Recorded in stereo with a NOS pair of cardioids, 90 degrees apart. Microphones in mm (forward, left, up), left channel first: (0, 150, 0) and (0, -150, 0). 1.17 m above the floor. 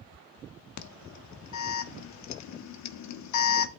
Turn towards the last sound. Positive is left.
turn(degrees=60)